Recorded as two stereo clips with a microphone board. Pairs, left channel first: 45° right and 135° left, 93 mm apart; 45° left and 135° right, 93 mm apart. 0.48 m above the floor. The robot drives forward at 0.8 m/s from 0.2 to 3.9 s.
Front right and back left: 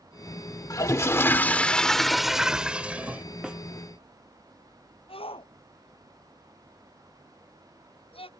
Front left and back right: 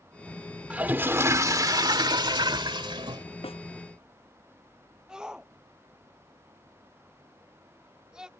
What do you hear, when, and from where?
0.7 s a toilet flushing: 65° right; by 3.2 s 155° right
3.4 s a snare drum: 55° left
5.1 s a shout: 55° right